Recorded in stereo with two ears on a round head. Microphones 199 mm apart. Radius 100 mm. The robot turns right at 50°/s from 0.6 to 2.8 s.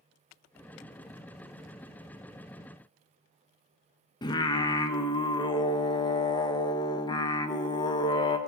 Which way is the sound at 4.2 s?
20° left (ahead or behind).